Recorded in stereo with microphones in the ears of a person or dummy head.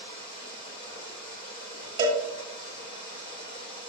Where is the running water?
25° left (ahead or behind), 0.9 m.